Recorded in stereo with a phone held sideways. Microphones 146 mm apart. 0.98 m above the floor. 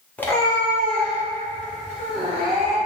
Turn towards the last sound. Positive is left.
turn(degrees=80)